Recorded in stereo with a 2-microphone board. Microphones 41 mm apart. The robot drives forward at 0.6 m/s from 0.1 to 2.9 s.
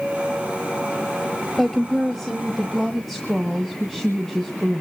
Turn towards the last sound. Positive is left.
turn(degrees=5)  # may be behind; listen again after turning